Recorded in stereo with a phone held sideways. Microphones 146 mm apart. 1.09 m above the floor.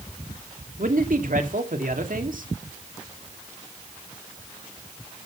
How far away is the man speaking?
About 2.0 m.